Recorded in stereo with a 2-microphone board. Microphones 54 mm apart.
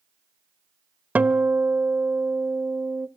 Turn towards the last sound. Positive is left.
turn(degrees=-35)  # may be behind; listen again after turning